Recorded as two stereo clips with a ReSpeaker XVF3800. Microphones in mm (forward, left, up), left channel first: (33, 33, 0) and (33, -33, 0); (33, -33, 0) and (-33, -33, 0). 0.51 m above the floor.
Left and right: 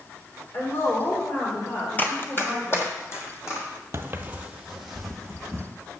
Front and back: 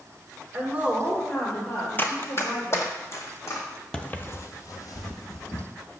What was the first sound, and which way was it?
A woman speaking, 135° left.